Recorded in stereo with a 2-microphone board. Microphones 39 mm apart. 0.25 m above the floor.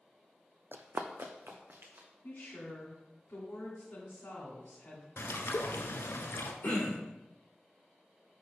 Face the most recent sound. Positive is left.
turn(degrees=50)  # may be behind; listen again after turning